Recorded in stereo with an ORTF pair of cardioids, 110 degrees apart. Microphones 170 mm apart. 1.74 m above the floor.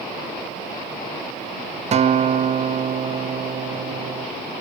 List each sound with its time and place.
1.9 s a guitar: 40° right, 0.7 m